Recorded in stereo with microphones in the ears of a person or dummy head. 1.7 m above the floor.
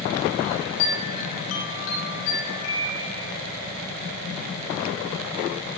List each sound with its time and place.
0.4 s a chime: 75° left (ahead or behind), 4.5 m